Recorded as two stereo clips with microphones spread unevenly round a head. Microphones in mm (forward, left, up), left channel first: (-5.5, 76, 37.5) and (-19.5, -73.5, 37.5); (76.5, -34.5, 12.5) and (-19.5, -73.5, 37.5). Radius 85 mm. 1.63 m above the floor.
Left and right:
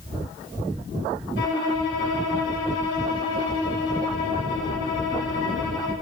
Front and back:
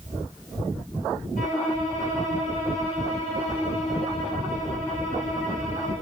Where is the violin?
75° left, 2.5 m.